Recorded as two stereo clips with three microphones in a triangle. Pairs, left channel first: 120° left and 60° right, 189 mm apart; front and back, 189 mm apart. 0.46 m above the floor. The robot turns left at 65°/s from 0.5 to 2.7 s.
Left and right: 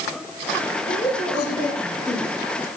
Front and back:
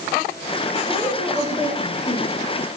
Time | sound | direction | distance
0.9 | a woman speaking | 110° left | 8.5 m